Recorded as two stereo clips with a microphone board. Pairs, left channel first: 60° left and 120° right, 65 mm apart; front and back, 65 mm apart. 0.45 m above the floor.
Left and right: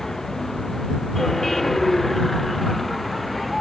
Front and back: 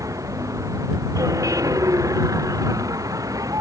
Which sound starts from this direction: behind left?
A vehicle, at 0.0 s.